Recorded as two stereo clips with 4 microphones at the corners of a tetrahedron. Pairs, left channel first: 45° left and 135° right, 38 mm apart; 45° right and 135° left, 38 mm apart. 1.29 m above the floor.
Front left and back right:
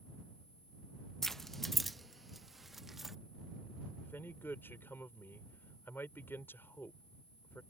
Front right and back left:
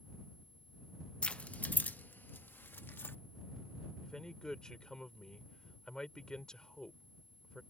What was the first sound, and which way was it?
Keys jangling, 25° right.